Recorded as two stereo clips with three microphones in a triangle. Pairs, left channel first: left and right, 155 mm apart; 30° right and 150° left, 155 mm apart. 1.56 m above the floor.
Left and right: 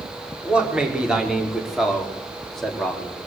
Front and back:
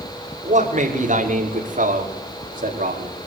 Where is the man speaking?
175° right, 5.5 m; by 3.3 s 175° left, 4 m.